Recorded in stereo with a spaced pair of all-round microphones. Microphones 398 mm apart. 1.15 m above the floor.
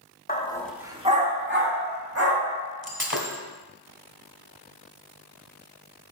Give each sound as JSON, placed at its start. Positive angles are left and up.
{"t": 0.3, "sound": "a dog barking", "side_deg": 25, "distance_m": 0.8}
{"t": 2.8, "sound": "breaking glass", "side_deg": -30, "distance_m": 1.6}